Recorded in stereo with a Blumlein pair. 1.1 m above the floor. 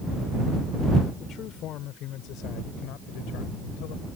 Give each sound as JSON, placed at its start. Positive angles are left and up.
{"t": 1.2, "sound": "a man speaking", "azimuth_deg": 30}